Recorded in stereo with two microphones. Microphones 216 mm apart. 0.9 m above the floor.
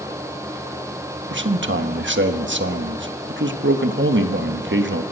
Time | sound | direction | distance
1.3 | a man speaking | 60° right (ahead or behind) | 1.2 m